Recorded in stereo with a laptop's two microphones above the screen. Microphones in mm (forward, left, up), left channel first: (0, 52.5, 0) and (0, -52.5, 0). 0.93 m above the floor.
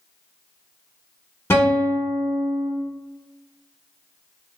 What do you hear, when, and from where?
1.5 s a guitar: 25° left (ahead or behind), 0.6 m